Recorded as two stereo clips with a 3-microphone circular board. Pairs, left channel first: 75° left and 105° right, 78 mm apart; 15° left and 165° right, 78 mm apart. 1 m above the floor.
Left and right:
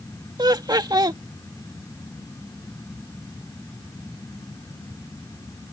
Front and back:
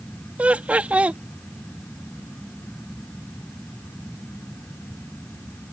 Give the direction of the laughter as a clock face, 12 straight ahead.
3 o'clock.